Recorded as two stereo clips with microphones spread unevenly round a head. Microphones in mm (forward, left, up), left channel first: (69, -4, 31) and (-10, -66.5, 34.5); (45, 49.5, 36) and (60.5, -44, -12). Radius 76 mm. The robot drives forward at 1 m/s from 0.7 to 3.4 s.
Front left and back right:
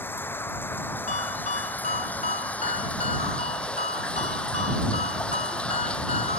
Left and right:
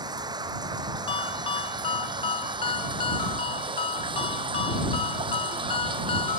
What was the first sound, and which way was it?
Running water, 30° right.